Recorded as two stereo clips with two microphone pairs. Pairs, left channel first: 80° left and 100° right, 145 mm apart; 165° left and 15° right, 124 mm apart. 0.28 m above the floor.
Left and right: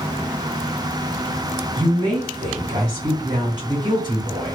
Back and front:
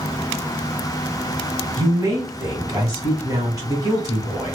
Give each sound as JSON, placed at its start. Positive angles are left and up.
{"t": 1.8, "sound": "a woman speaking", "azimuth_deg": -60, "distance_m": 1.5}